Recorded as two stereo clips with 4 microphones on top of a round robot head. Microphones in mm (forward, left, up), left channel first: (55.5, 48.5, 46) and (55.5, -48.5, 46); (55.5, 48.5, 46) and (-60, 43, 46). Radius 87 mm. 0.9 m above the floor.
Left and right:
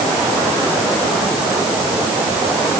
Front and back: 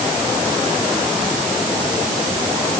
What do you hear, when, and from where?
Only background noise.